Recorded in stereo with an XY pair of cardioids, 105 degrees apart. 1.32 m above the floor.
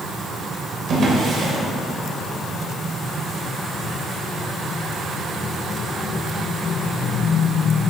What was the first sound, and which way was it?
A drawer, 55° right.